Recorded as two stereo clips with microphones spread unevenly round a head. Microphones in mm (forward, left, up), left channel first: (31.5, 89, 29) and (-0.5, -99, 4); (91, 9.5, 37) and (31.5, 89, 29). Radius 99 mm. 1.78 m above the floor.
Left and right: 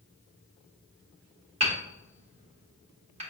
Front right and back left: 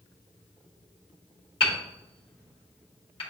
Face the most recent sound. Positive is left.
turn(degrees=-40)